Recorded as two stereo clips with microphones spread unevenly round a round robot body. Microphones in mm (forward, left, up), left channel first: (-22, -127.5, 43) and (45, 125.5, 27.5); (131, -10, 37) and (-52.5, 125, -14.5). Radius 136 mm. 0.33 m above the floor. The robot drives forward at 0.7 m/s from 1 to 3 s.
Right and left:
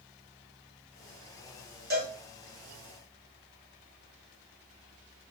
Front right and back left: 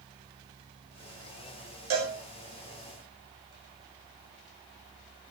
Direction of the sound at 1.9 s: 130° left.